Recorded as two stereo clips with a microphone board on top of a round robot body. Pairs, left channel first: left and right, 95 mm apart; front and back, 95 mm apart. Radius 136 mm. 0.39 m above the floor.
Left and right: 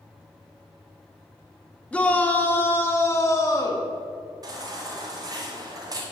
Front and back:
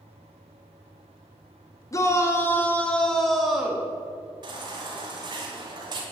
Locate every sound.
1.9 s a shout: 25° left, 1.4 m; by 3.9 s 110° left, 1.4 m
4.4 s a baby crying: 140° right, 1.9 m